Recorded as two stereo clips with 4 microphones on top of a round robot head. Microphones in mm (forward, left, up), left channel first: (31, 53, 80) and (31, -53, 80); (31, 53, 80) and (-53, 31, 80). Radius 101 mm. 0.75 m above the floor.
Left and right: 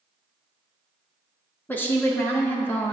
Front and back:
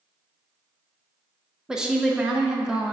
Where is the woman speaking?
125° left, 0.7 m.